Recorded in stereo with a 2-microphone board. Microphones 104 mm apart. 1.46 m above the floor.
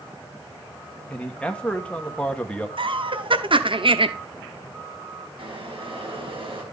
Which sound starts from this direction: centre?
A man speaking, at 1.1 s.